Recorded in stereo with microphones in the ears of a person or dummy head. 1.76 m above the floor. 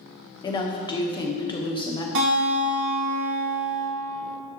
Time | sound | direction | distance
0.4 | a woman speaking | 20° left (ahead or behind) | 1.0 m
2.1 | a guitar | 70° right (ahead or behind) | 2 m